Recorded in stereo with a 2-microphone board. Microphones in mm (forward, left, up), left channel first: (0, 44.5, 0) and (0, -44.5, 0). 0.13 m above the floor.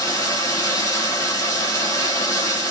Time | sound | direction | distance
0.0 | running water | 35° left (ahead or behind) | 1.0 m